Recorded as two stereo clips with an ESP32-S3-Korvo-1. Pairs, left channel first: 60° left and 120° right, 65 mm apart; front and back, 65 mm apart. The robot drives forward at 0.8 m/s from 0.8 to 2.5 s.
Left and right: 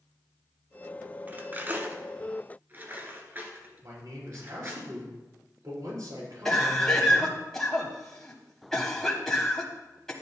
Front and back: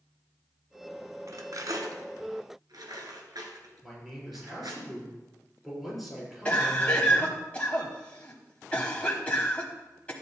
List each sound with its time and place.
1.3 s cutlery clinking: 175° right, 0.9 m; by 4.8 s straight behind, 1.8 m
3.8 s a man speaking: 90° right, 5.5 m
6.5 s a cough: 5° right, 1.1 m